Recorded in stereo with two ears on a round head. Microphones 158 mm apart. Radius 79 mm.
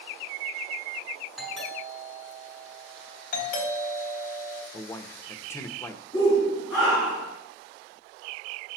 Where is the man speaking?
15° left (ahead or behind), 1.0 m.